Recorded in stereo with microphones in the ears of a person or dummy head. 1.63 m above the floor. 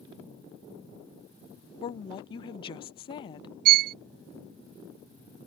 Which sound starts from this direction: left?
A woman speaking, at 1.8 s.